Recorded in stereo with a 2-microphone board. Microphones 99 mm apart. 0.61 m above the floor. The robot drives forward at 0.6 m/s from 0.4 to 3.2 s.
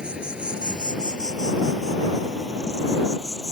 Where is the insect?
10° right (ahead or behind); by 3.5 s 5° right (ahead or behind).